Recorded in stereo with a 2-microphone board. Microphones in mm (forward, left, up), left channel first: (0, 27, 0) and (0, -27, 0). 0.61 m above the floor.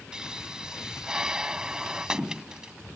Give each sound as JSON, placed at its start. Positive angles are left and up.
{"t": 0.1, "sound": "a pop", "side_deg": -15}